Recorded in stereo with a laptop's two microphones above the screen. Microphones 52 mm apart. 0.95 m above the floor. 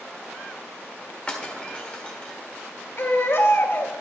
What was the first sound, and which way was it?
Breaking glass, 25° left (ahead or behind).